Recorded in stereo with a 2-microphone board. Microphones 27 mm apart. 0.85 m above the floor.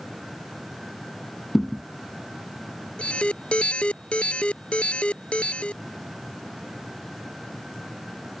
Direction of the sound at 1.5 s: 10° left (ahead or behind).